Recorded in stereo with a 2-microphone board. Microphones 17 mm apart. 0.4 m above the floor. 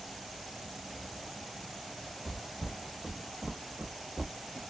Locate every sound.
2.2 s footsteps: centre (ahead or behind), 1.5 m; by 4.6 s 65° right (ahead or behind), 0.8 m